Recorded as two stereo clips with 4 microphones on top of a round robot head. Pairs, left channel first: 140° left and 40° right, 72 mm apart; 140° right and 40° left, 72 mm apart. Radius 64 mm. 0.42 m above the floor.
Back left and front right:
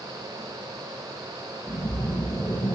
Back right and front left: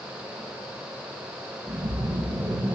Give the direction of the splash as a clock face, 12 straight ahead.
9 o'clock.